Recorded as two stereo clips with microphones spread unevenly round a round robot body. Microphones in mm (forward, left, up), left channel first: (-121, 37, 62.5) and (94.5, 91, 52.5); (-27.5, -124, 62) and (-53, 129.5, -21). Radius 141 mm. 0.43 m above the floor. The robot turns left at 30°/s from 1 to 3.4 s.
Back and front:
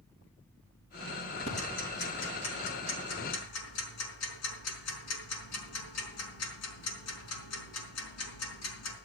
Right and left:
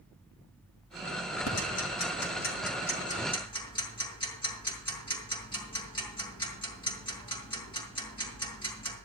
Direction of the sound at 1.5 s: 100° right.